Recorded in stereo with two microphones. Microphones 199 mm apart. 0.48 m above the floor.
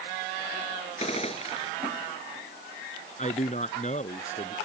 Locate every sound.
1.0 s a gunshot: 30° left (ahead or behind)
3.2 s a man speaking: 35° left (ahead or behind)